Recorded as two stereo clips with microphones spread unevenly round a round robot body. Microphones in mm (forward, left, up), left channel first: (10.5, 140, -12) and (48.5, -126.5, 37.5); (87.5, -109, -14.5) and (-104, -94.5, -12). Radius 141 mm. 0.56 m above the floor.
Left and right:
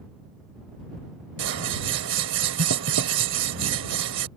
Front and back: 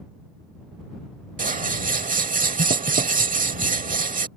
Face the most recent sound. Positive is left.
turn(degrees=-135)